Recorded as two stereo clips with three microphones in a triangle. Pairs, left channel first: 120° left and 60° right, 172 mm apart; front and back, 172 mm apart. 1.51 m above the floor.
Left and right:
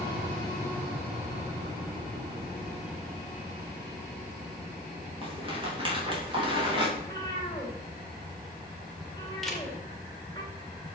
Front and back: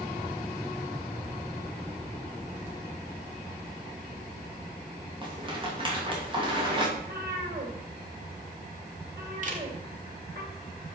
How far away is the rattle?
About 3 m.